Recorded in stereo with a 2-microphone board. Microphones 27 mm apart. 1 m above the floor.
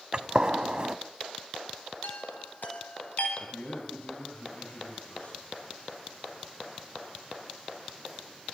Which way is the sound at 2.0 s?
70° left (ahead or behind).